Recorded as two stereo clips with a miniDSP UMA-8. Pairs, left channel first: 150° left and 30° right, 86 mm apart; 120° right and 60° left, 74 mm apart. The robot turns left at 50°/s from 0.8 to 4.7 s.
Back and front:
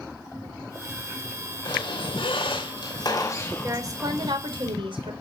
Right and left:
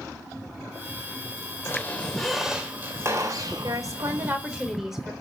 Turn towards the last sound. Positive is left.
turn(degrees=-25)